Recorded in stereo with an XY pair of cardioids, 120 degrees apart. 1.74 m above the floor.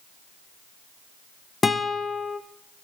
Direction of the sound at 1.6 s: 25° left.